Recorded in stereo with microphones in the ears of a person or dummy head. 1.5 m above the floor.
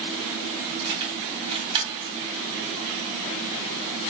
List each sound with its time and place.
0.8 s keys jangling: 25° right (ahead or behind), 2.5 m